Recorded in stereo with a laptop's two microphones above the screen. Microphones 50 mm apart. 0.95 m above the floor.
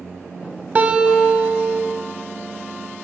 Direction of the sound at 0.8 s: 30° right (ahead or behind).